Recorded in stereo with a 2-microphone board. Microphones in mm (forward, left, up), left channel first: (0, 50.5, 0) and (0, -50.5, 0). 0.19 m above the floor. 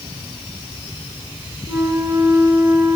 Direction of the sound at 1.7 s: 25° right (ahead or behind).